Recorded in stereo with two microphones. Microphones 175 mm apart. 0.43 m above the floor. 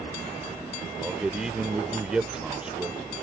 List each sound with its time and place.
1.0 s a man speaking: 5° right (ahead or behind)